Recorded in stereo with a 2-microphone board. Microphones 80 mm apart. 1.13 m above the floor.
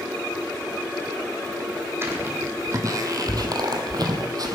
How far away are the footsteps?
About 3 m.